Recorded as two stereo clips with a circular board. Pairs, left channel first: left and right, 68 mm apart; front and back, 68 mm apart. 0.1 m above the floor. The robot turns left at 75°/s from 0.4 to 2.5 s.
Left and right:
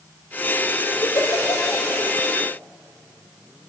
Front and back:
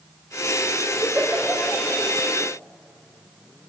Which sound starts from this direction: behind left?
A giggle, at 1.0 s.